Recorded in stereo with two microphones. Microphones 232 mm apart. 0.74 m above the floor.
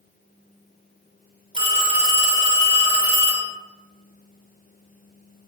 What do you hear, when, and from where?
1.5 s a phone ringing: 25° right (ahead or behind), 1.5 m